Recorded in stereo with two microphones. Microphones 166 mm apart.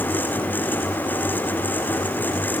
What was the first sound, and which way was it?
Only background noise.